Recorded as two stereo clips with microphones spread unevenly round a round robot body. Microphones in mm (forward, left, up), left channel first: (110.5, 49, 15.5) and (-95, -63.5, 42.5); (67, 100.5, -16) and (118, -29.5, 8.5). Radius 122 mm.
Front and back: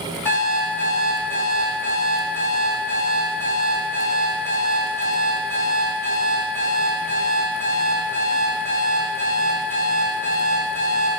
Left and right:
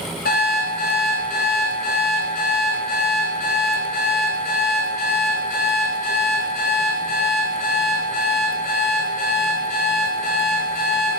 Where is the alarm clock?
110° left, 1.6 m.